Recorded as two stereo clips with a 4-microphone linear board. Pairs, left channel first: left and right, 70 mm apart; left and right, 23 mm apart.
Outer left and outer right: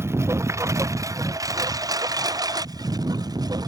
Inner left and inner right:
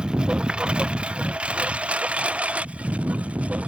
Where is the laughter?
No laughter in this recording.